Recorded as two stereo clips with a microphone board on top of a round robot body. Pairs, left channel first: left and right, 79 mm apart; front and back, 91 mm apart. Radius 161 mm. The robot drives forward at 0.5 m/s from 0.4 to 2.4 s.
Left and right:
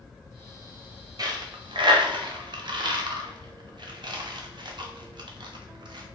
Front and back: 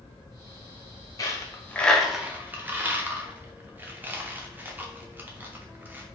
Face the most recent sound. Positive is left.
turn(degrees=-110)